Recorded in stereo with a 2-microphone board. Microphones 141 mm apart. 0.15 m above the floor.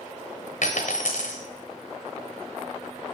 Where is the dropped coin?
70° left (ahead or behind), 1.0 m.